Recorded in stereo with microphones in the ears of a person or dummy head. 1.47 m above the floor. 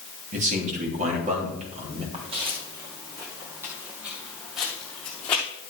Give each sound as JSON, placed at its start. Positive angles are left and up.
{"t": 0.3, "sound": "a man speaking", "side_deg": -40, "distance_m": 3.0}
{"t": 2.1, "sound": "footsteps", "side_deg": -30, "distance_m": 2.5}